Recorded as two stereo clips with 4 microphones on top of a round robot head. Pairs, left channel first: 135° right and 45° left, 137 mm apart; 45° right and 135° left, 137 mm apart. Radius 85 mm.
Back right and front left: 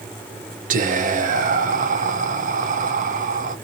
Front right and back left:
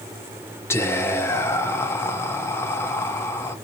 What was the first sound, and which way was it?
Whispering, 25° left.